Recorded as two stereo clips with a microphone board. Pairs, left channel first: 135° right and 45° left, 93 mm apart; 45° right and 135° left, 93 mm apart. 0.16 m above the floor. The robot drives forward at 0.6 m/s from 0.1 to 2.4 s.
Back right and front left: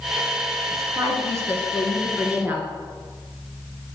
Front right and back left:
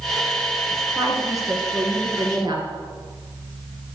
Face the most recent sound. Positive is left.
turn(degrees=115)